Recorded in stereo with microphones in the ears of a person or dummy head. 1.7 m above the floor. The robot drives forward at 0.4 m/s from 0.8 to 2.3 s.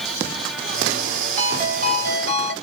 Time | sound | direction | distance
1.4 | a ringtone | 50° right (ahead or behind) | 2 m